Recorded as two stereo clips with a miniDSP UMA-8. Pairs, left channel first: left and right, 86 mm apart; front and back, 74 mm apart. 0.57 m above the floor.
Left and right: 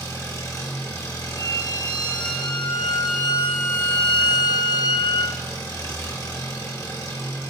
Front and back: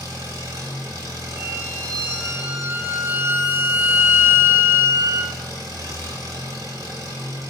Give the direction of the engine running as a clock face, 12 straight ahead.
7 o'clock.